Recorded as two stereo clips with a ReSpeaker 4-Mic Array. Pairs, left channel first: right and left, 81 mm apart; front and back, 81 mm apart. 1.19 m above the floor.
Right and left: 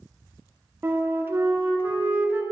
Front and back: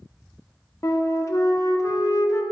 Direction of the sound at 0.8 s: 35° left.